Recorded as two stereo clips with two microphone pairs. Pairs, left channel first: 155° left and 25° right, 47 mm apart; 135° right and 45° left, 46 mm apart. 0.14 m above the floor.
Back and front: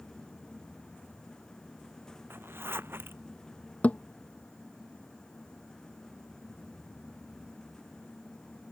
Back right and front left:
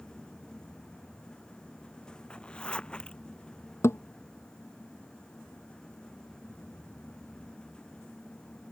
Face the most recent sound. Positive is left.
turn(degrees=-150)